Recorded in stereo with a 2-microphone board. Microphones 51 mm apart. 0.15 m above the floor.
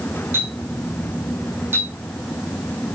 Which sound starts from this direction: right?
A clink, at 0.3 s.